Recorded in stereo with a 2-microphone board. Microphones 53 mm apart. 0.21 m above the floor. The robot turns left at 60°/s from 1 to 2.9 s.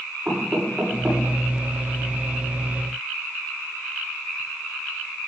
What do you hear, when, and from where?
0.2 s knocking: 25° right (ahead or behind), 10 m; by 1.2 s 10° right (ahead or behind), 10 m